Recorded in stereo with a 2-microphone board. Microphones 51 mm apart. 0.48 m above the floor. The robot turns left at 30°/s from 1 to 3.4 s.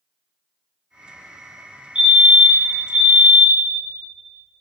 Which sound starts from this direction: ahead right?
A fire alarm, at 1.9 s.